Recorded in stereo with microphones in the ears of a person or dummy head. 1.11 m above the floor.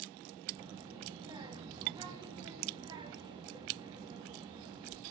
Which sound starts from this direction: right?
A child speaking, at 0.6 s.